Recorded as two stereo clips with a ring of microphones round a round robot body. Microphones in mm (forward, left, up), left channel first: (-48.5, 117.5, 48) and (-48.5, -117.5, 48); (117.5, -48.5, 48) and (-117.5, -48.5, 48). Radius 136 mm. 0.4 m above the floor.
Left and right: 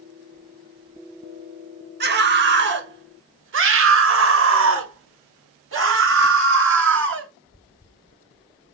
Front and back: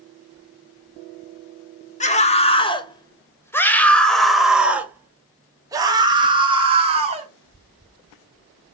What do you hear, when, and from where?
2.0 s a scream: 55° right, 2 m; by 7.3 s 120° right, 3 m